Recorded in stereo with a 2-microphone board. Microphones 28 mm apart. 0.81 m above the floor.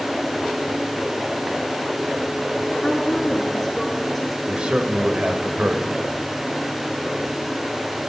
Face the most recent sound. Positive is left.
turn(degrees=-45)  # may be behind; listen again after turning